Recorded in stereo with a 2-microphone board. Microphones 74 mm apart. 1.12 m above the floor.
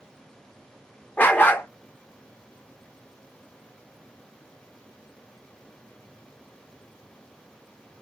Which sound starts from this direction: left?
A dog barking, at 1.2 s.